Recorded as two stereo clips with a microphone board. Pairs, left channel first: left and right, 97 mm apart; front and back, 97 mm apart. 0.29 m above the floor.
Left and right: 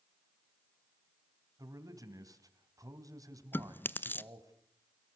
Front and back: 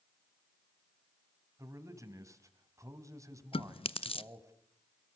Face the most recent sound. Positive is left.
turn(degrees=20)